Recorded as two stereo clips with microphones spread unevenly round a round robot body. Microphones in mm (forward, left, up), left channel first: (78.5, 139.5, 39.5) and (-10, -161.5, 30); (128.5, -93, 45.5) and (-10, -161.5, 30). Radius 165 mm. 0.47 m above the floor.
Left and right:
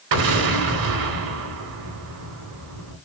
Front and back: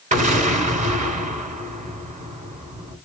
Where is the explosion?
115° right, 3 m.